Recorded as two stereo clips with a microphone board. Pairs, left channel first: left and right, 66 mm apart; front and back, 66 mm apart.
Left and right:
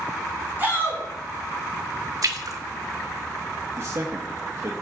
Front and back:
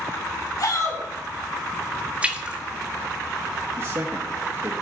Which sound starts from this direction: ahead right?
A shout, at 0.6 s.